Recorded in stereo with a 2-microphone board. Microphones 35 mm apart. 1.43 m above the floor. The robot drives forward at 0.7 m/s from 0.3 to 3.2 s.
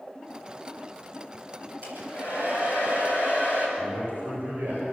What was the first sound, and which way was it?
A hair dryer, 65° right (ahead or behind).